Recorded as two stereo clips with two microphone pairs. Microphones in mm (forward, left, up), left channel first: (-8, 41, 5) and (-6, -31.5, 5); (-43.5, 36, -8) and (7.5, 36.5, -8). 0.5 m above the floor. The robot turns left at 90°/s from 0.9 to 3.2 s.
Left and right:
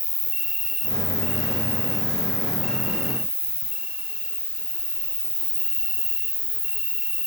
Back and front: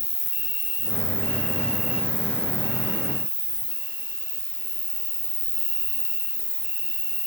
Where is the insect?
175° left, 1.2 m; by 7.3 s 30° right, 1.2 m.